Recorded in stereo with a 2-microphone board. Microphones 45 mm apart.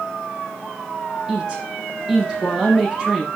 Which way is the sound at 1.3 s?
15° right (ahead or behind).